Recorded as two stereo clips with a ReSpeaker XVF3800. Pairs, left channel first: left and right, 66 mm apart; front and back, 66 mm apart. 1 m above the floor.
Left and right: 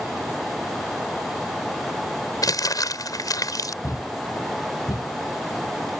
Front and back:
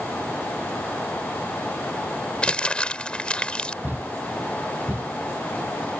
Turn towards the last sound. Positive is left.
turn(degrees=115)